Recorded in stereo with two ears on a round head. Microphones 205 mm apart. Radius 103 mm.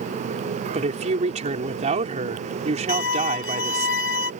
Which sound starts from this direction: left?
A violin, at 2.9 s.